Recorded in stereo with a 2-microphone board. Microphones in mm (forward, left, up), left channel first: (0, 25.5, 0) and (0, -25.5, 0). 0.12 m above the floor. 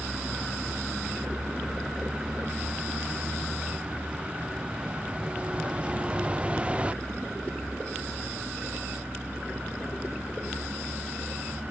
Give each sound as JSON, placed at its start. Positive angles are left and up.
{"t": 0.0, "sound": "a vehicle", "side_deg": -15}